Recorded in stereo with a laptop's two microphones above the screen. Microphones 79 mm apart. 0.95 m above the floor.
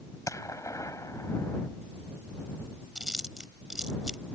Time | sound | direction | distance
0.3 | a gunshot | 40° left (ahead or behind) | ?
3.0 | chewing | 10° right (ahead or behind) | ?